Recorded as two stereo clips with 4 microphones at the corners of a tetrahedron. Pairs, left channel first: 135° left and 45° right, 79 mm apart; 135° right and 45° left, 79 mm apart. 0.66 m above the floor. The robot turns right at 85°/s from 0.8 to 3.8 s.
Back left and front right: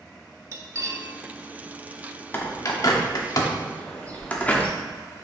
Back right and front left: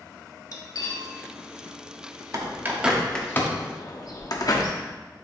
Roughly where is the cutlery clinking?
Right.